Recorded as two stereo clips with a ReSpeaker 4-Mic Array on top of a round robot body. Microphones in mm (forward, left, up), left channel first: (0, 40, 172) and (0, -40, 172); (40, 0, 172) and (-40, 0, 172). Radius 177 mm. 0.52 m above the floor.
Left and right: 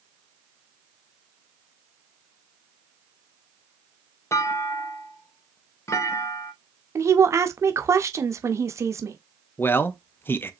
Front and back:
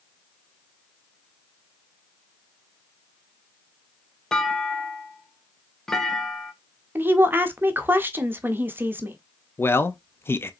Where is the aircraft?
I don't hear an aircraft.